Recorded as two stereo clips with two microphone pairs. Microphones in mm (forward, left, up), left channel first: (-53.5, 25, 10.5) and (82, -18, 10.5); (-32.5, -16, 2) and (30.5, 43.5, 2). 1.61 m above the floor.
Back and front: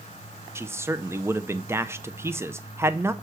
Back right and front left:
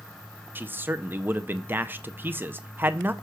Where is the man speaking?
20° left, 0.5 m.